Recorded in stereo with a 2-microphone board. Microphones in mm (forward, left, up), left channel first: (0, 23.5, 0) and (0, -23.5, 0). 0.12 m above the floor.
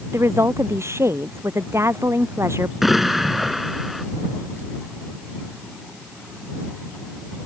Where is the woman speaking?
80° right.